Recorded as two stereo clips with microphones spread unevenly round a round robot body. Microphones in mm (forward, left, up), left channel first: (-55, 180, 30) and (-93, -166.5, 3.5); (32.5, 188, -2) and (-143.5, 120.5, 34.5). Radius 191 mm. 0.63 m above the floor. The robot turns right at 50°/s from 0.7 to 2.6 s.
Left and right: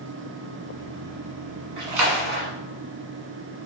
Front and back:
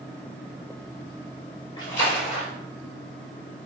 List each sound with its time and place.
1.8 s a splash: 60° right, 1.3 m; by 2.5 s 25° right, 1.3 m